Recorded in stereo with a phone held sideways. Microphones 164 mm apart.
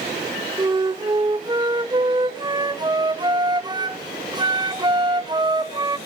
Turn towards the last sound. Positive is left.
turn(degrees=-25)  # may be behind; listen again after turning